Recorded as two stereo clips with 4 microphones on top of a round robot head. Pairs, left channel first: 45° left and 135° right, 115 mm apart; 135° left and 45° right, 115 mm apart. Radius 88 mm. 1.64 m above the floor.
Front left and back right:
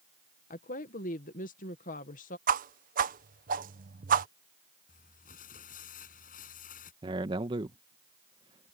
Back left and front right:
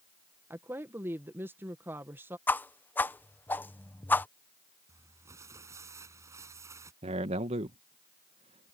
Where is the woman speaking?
30° left.